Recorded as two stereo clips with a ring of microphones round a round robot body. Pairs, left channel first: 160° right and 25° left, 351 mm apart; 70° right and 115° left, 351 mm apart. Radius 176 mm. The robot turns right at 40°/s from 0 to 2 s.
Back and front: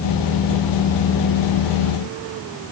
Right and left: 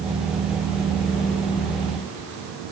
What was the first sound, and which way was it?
Only background noise.